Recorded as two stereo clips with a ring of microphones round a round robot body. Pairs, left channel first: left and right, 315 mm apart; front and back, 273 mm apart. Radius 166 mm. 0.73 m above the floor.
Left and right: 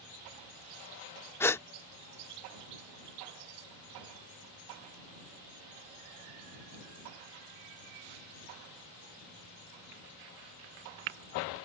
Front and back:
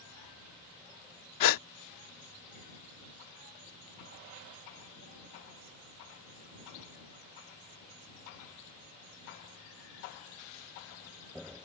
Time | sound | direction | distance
1.4 | a gasp | 5° left | ?